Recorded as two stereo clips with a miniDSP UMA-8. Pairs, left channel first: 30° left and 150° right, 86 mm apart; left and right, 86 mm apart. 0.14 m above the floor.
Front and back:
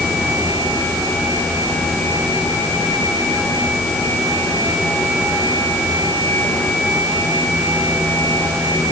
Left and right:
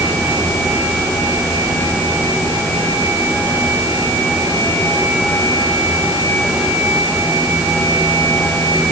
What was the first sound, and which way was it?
Only background noise.